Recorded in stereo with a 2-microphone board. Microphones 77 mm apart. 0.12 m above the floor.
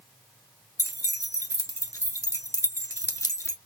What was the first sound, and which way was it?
Keys jangling, 40° left (ahead or behind).